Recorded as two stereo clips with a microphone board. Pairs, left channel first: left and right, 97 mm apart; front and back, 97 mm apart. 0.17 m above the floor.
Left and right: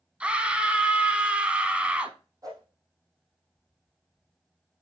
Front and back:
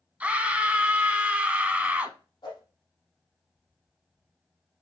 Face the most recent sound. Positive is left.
turn(degrees=-40)